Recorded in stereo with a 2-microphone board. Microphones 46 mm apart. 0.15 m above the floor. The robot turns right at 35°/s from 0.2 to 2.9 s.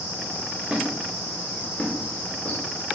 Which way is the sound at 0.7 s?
20° right (ahead or behind).